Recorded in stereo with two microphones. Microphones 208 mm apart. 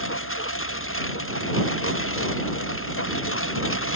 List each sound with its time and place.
0.0 s a lawn mower: 85° left